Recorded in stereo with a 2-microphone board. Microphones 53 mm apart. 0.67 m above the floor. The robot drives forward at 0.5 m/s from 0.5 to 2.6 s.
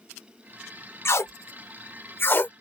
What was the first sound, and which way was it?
Tape being pulled, 55° left (ahead or behind).